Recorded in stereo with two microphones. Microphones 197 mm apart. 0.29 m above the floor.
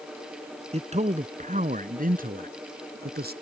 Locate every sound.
0.7 s a man speaking: 30° right (ahead or behind); by 3.3 s 50° right (ahead or behind)